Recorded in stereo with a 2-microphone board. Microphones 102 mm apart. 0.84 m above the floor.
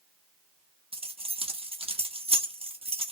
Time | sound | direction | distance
0.9 | keys jangling | 70° right (ahead or behind) | 0.9 m